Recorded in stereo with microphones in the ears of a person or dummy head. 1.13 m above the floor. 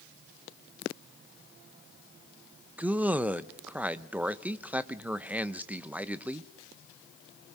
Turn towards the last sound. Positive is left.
turn(degrees=-5)  # may be behind; listen again after turning